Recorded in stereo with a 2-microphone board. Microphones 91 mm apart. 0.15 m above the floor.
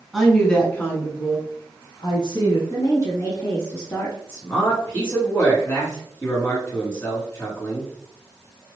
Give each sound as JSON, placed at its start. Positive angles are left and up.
{"t": 0.1, "sound": "a woman speaking", "side_deg": 0, "distance_m": 1.2}
{"t": 2.7, "sound": "a woman speaking", "side_deg": 30, "distance_m": 1.1}
{"t": 4.3, "sound": "a man speaking", "side_deg": 25, "distance_m": 1.9}